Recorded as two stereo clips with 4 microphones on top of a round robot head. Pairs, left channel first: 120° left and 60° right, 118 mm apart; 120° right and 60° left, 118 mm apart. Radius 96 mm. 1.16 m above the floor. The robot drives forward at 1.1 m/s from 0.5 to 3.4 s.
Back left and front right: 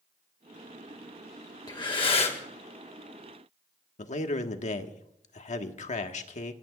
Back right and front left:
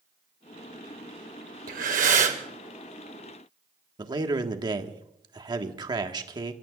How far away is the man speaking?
About 1.6 m.